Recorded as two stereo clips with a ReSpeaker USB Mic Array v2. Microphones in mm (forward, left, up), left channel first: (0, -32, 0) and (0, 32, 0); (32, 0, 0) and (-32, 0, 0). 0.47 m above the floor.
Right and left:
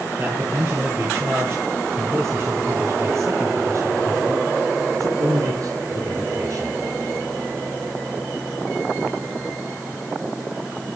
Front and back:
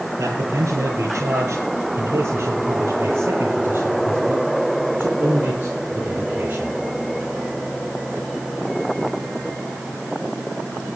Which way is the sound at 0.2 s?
140° left.